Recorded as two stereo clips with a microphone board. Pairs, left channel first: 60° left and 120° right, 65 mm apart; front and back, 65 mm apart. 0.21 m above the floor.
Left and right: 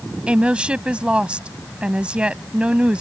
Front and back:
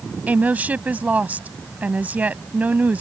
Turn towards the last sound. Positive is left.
turn(degrees=-165)